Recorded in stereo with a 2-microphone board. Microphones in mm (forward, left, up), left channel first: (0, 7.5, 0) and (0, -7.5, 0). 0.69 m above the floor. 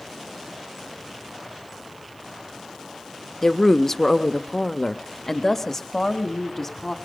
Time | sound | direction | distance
3.4 | a woman speaking | 10° left (ahead or behind) | 1.1 m